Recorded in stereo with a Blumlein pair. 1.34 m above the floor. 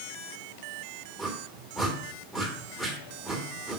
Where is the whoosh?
5° left, 2 m.